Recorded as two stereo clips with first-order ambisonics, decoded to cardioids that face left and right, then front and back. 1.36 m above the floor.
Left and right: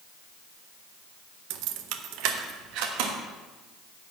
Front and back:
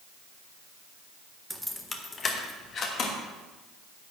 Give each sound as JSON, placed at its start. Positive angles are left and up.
{"t": 1.5, "sound": "keys jangling", "azimuth_deg": -95, "distance_m": 0.6}